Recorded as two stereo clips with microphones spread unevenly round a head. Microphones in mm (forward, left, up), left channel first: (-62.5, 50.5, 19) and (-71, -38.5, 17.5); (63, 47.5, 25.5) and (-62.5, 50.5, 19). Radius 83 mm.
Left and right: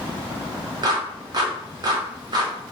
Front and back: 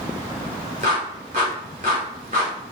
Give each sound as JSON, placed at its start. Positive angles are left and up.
{"t": 0.8, "sound": "a clap", "azimuth_deg": -130, "distance_m": 1.0}